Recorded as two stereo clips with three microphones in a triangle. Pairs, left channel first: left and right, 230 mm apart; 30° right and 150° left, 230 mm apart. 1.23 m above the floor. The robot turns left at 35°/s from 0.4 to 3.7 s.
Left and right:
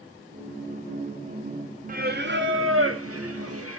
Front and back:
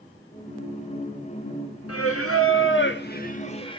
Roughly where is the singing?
Ahead right.